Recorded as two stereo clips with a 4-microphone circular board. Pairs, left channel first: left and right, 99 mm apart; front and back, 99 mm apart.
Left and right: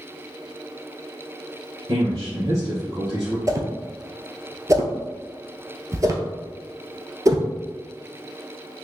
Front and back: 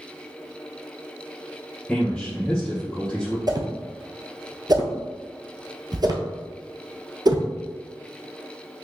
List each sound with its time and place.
1.9 s a man speaking: 80° right, 1.4 m
3.5 s a whoosh: 140° right, 0.7 m